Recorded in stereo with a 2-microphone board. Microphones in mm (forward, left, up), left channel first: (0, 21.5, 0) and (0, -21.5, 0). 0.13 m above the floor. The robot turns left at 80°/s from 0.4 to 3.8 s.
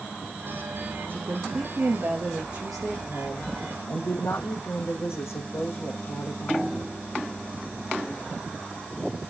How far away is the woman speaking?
About 5 m.